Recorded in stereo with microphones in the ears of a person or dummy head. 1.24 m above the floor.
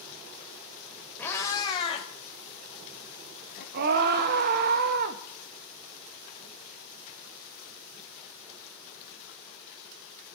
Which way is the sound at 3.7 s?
55° right (ahead or behind).